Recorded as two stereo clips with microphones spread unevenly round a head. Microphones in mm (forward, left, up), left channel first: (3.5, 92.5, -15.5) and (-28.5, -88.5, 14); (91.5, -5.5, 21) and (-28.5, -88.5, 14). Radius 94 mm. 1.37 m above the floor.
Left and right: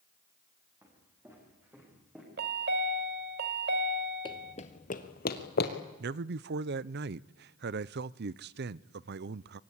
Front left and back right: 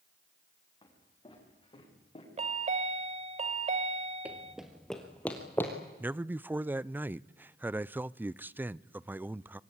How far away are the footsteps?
About 9 m.